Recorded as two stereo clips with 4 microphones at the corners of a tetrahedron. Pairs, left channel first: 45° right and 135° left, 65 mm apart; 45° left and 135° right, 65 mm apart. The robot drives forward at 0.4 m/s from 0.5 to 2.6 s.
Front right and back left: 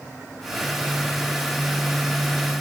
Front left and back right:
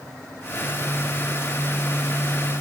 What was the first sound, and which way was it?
Only background noise.